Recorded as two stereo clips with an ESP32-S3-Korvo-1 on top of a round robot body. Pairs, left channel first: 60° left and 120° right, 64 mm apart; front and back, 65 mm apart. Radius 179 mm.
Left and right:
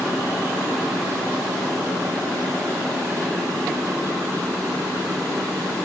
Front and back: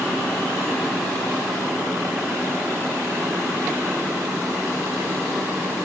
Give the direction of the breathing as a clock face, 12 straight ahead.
I don't hear breathing.